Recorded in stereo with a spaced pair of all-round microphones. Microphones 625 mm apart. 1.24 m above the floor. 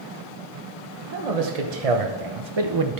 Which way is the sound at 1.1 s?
80° right.